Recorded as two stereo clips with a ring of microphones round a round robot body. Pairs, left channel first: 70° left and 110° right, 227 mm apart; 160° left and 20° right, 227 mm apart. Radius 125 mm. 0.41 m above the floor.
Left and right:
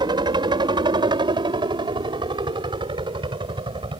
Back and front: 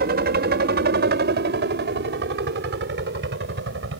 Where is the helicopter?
50° right; by 4.0 s 45° right.